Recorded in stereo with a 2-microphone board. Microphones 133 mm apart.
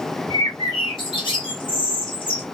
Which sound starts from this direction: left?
A bird, at 0.3 s.